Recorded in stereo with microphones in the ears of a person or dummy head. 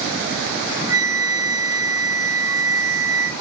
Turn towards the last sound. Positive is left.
turn(degrees=-15)  # may be behind; listen again after turning